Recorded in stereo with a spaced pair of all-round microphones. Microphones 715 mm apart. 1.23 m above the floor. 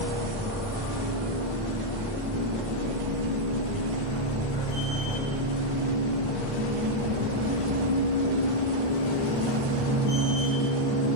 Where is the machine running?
10° right (ahead or behind), 1.9 m.